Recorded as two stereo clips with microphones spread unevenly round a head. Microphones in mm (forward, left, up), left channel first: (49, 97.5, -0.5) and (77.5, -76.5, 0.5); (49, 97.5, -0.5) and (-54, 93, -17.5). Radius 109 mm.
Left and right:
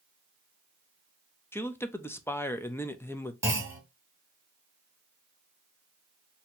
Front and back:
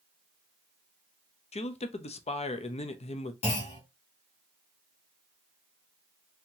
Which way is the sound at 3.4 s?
5° right.